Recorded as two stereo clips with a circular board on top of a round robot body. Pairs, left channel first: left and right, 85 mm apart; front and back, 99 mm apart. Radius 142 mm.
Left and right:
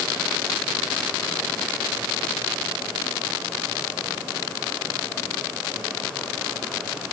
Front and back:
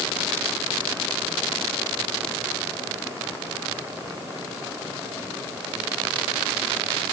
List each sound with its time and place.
Only background noise.